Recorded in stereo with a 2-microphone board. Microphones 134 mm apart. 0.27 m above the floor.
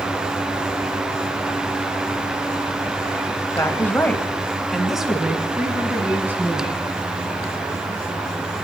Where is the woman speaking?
20° left (ahead or behind), 1.2 m; by 6.8 s 15° right (ahead or behind), 2.5 m.